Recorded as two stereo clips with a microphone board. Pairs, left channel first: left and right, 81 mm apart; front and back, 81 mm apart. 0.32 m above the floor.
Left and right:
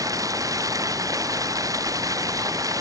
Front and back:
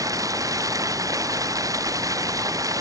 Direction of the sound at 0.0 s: 135° right.